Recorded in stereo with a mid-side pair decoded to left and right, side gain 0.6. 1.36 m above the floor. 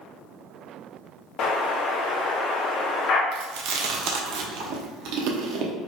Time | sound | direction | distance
1.4 | an explosion | 60° left | 0.6 m
3.3 | chewing | 65° right | 0.7 m